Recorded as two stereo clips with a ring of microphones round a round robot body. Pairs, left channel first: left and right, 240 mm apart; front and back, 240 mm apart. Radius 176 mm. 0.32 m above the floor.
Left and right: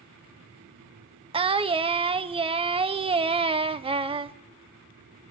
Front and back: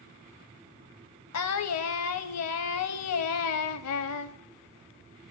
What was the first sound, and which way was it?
Singing, 20° right.